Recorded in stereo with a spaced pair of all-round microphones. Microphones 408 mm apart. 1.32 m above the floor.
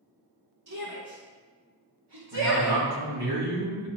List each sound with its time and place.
0.7 s a shout: 50° right (ahead or behind), 1.7 m; by 2.8 s 80° right, 1.5 m
2.3 s a man speaking: 70° right (ahead or behind), 2.5 m